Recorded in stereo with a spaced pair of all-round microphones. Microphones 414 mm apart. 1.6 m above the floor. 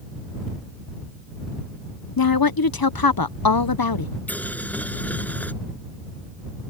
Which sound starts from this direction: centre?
Boiling, at 4.3 s.